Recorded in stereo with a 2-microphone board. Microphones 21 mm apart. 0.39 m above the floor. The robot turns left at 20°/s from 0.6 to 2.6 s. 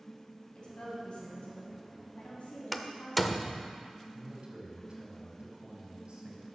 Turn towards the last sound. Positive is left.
turn(degrees=-50)  # may be behind; listen again after turning